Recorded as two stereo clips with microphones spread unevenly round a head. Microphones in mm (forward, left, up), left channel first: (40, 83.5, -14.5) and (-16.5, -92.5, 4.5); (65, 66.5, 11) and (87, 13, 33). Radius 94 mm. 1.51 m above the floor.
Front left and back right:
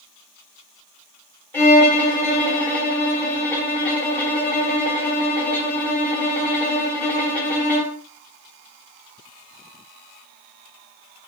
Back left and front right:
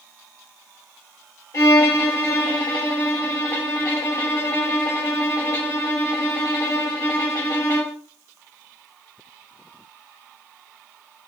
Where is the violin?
155° left, 1.4 m.